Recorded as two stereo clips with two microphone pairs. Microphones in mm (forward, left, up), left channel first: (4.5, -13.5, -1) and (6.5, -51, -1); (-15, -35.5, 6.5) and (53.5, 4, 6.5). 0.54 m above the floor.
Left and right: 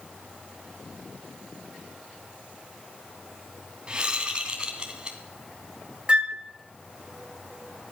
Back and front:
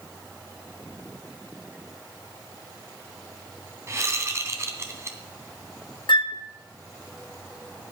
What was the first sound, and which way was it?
A whoosh, 25° right.